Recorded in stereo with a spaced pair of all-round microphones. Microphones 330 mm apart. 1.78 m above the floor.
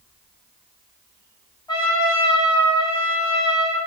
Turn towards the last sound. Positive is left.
turn(degrees=10)  # may be behind; listen again after turning